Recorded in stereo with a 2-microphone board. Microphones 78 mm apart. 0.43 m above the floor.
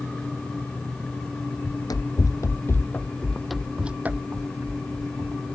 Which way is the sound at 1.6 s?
65° left (ahead or behind).